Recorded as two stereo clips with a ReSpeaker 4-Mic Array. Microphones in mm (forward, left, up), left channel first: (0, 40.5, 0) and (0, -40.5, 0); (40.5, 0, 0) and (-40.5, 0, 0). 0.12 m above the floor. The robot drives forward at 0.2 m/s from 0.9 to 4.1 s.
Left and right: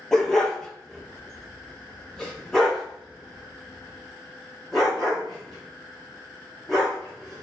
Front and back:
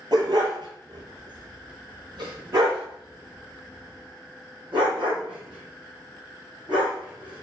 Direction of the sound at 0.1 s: 175° left.